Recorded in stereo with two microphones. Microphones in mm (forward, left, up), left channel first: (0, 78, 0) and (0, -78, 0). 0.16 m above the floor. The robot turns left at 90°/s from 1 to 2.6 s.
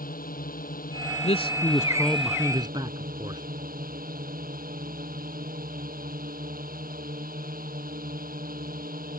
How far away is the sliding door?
I don't hear a sliding door.